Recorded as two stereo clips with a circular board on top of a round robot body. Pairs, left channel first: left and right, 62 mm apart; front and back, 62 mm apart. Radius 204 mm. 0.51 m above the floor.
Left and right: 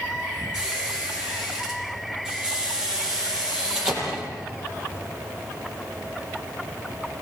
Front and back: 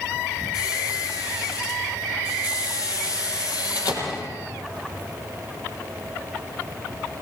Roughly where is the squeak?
Ahead.